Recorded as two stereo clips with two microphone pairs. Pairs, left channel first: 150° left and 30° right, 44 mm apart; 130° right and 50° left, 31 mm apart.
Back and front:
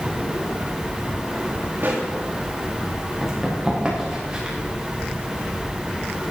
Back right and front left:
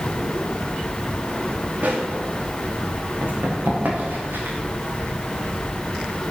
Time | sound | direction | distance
1.8 | a pop | 15° left | 4.5 m
3.2 | running footsteps | 50° left | 7 m